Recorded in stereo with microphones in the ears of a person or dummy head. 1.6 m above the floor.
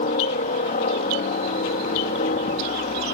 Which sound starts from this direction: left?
A helicopter, at 0.0 s.